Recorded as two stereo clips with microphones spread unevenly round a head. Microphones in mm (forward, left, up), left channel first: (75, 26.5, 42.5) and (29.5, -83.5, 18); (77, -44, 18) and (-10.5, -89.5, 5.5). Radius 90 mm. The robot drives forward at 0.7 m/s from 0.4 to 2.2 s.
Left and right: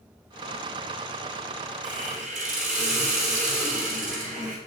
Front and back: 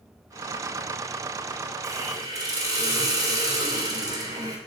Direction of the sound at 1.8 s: 150° left.